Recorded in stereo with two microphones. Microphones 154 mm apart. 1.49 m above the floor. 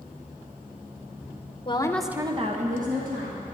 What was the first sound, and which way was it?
A woman speaking, 35° left (ahead or behind).